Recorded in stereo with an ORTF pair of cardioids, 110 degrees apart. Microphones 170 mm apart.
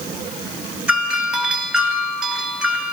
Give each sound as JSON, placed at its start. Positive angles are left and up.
{"t": 0.9, "sound": "a doorbell", "azimuth_deg": -5, "distance_m": 6.0}